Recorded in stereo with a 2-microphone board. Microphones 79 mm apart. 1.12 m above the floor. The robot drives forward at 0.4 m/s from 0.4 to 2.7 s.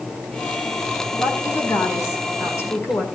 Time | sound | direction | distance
1.2 | a woman speaking | 40° left (ahead or behind) | 4.5 m